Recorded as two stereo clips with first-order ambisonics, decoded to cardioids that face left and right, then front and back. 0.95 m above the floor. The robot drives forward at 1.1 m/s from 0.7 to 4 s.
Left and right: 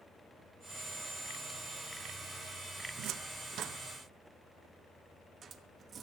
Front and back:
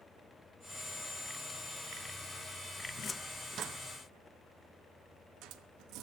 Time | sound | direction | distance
3.0 | a cupboard door | 60° right | 0.7 m